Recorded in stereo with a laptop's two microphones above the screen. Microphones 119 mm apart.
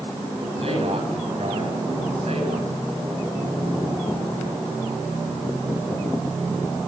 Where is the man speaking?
60° right (ahead or behind), 6.5 m; by 2.7 s 70° right (ahead or behind), 6.5 m.